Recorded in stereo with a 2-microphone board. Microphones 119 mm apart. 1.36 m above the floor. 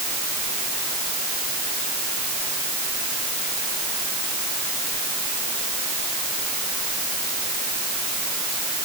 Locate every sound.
Only background noise.